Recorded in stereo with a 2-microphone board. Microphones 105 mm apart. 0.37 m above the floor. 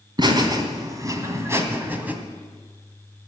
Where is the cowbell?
I don't hear a cowbell.